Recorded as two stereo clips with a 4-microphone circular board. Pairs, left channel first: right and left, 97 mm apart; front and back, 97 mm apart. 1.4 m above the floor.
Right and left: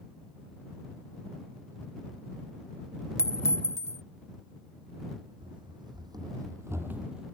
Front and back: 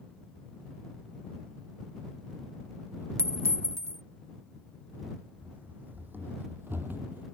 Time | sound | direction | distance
3.2 | a clink | 135° right | ?
5.4 | running footsteps | 110° left | ?